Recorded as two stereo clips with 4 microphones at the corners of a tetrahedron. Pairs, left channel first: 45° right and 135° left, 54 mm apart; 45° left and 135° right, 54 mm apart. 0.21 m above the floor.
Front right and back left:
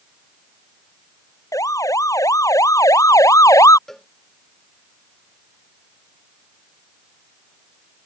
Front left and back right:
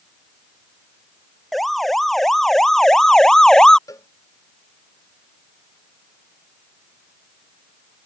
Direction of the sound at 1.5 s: 45° right.